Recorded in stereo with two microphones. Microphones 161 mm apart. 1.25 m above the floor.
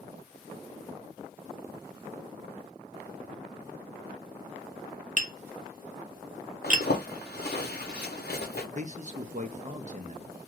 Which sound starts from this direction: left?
A zipper, at 6.6 s.